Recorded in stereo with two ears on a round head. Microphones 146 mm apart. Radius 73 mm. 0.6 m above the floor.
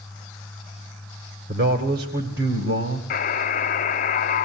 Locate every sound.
1.5 s a man speaking: 65° right (ahead or behind), 2 m; by 3.0 s 70° right (ahead or behind), 3 m
3.1 s a buzzer: 50° left (ahead or behind), 1.1 m